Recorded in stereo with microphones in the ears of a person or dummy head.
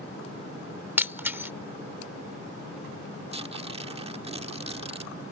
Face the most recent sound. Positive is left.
turn(degrees=-35)  # may be behind; listen again after turning